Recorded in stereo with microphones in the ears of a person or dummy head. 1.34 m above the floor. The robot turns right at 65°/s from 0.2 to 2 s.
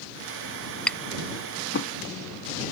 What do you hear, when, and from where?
0.9 s tapping: centre (ahead or behind); by 1.9 s 70° left (ahead or behind)